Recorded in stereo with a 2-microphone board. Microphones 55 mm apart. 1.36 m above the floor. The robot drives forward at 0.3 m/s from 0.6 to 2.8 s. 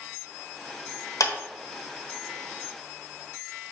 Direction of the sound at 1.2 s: 85° left.